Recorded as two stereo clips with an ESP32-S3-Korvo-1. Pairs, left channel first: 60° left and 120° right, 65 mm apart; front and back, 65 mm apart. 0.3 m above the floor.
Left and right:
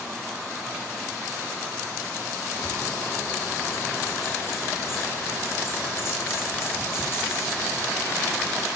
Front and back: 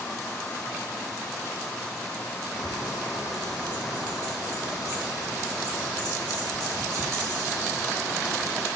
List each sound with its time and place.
2.5 s a bird: 10° left, 9.5 m